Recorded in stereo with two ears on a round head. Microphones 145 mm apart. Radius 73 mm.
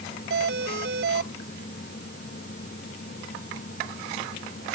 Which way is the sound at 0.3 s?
75° right (ahead or behind).